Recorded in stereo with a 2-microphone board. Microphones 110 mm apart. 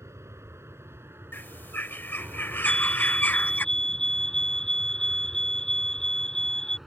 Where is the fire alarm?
5° left (ahead or behind).